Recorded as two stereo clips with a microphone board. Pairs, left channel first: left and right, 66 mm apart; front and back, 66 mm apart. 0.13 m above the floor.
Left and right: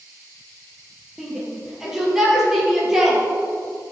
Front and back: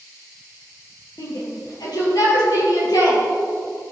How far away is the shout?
About 4 m.